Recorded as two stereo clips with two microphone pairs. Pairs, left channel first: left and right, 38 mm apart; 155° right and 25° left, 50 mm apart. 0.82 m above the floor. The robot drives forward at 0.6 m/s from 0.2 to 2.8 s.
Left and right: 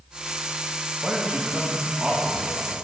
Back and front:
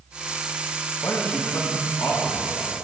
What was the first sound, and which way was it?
A man speaking, 155° right.